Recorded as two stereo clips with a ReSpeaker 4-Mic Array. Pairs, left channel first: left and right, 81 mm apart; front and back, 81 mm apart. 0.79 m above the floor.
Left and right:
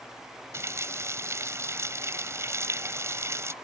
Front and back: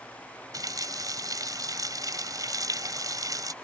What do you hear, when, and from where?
0.5 s a running tap: 145° right